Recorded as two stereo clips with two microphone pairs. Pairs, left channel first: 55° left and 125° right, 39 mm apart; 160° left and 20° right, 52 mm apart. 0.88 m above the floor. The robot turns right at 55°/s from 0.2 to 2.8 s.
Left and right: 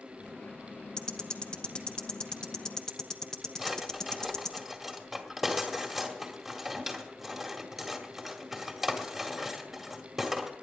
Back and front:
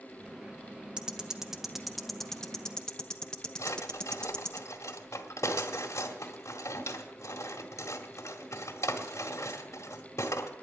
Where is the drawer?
150° left, 2.0 m.